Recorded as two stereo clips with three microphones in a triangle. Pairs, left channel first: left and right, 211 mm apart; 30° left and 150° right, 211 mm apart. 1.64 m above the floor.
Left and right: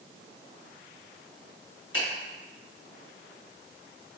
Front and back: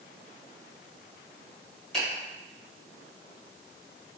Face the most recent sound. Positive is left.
turn(degrees=115)